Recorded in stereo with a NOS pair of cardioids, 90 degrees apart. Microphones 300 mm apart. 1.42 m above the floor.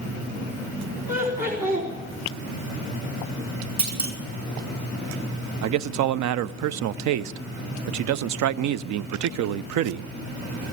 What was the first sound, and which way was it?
Laughter, 30° right.